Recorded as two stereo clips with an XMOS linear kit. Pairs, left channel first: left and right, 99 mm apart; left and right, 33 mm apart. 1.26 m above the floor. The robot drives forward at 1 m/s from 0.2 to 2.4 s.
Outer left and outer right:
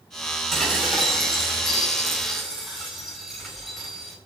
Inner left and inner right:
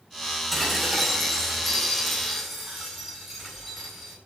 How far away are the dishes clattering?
About 6.5 m.